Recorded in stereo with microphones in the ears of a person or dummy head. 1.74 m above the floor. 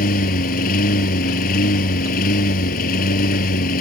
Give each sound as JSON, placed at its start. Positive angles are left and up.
{"t": 0.0, "sound": "a lawn mower", "side_deg": 50}